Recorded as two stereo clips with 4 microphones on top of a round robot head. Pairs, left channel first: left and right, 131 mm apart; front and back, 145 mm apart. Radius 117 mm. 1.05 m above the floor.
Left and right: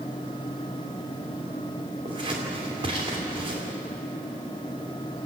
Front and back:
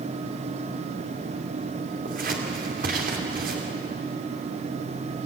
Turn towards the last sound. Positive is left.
turn(degrees=-150)